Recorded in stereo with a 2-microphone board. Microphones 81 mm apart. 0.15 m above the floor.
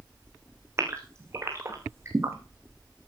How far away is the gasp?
About 3.5 m.